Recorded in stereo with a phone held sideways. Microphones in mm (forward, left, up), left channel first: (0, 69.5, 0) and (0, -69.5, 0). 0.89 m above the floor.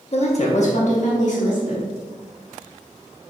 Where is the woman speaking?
50° left (ahead or behind), 1.1 m; by 1.9 s 60° left (ahead or behind), 2.5 m.